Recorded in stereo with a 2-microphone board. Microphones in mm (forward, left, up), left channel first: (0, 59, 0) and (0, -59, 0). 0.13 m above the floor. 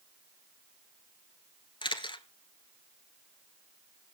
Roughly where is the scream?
I don't hear a scream.